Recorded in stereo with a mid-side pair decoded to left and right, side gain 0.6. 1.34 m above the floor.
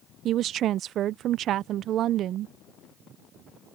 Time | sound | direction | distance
0.2 | a woman speaking | 55° right | ?